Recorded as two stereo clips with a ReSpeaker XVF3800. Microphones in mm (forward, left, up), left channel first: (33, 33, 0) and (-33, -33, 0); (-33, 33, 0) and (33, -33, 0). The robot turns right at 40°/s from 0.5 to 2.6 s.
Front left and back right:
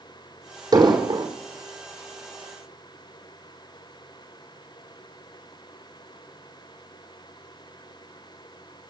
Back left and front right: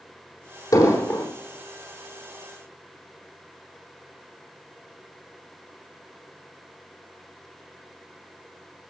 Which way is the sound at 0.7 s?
175° right.